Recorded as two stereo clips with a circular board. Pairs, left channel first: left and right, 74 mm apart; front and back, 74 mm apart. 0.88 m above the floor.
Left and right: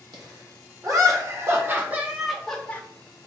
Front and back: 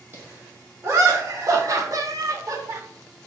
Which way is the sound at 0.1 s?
125° right.